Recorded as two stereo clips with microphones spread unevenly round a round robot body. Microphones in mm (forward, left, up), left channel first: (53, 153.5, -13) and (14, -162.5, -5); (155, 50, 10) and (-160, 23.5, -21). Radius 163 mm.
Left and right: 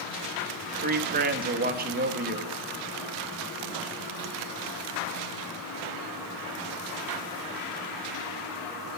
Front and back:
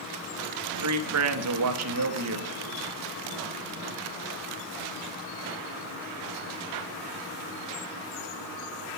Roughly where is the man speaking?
Behind.